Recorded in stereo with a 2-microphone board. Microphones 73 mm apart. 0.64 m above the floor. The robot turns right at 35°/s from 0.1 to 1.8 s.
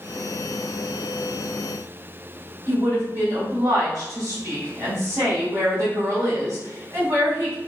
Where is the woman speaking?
50° right (ahead or behind), 1.8 m.